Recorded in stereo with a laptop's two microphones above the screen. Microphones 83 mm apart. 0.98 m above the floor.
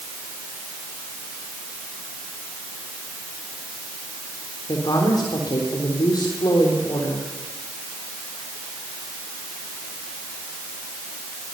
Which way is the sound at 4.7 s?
55° left (ahead or behind).